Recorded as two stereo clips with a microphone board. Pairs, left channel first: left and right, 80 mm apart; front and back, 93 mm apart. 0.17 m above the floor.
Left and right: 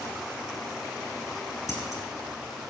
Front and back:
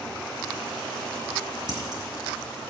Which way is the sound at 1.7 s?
140° left.